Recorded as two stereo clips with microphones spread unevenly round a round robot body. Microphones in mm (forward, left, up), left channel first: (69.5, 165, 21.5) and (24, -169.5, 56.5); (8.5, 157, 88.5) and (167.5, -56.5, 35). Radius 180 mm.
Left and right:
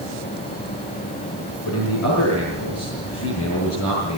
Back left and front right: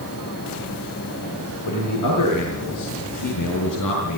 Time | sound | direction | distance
1.7 | a man speaking | 135° left | 6.5 m